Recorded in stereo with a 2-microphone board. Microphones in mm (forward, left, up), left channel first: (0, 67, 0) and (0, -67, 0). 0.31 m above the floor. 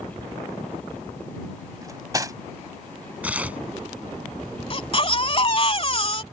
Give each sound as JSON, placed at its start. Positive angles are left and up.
{"t": 1.8, "sound": "cutlery clinking", "side_deg": -25}
{"t": 3.2, "sound": "tearing paper", "side_deg": -10}
{"t": 4.7, "sound": "a baby crying", "side_deg": 40}